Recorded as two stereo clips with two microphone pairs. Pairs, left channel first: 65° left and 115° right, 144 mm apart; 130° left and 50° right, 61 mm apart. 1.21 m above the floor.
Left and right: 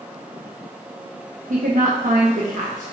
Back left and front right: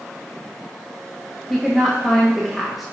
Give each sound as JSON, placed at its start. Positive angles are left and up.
{"t": 1.5, "sound": "a woman speaking", "azimuth_deg": -135, "distance_m": 1.0}